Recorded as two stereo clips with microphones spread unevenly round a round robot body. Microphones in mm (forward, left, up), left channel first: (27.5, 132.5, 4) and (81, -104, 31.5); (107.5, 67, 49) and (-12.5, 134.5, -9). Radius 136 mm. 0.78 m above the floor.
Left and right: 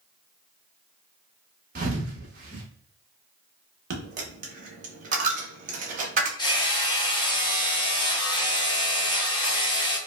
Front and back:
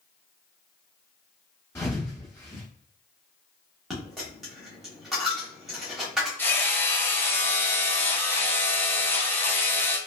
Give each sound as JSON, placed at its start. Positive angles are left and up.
{"t": 1.8, "sound": "a thud", "azimuth_deg": -60, "distance_m": 0.9}
{"t": 3.9, "sound": "a dropped coin", "azimuth_deg": -85, "distance_m": 0.6}
{"t": 6.4, "sound": "hammering", "azimuth_deg": 80, "distance_m": 0.8}